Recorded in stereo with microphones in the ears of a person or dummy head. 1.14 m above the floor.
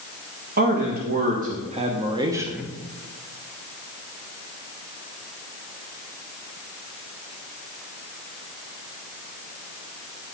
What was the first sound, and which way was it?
A man speaking, 45° right (ahead or behind).